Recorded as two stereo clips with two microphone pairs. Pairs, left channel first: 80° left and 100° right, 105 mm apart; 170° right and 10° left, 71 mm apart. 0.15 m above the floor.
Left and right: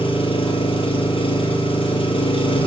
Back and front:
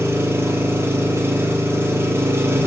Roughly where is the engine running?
Ahead left.